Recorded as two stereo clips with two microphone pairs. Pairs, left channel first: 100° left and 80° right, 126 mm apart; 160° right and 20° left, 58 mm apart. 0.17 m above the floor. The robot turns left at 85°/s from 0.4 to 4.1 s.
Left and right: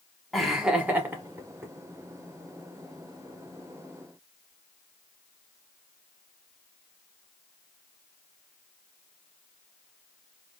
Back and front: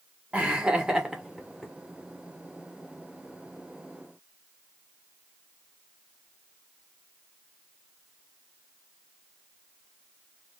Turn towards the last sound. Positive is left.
turn(degrees=60)